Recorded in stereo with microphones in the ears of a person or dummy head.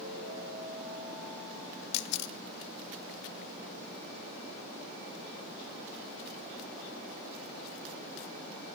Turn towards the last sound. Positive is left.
turn(degrees=65)  # may be behind; listen again after turning